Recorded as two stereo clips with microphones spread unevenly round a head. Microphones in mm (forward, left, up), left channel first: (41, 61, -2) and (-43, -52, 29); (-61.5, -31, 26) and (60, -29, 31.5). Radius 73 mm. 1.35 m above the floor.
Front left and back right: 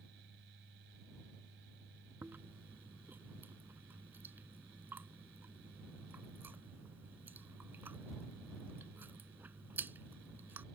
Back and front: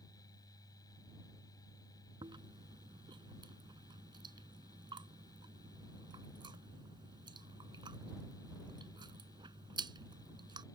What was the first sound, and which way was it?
A fan, 120° right.